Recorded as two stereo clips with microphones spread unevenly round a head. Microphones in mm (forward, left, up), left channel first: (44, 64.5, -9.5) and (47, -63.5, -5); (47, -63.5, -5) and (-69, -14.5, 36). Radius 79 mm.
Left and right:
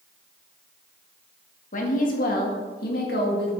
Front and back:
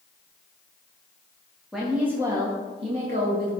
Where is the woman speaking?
70° left, 1.5 m; by 3.5 s 115° left, 1.8 m.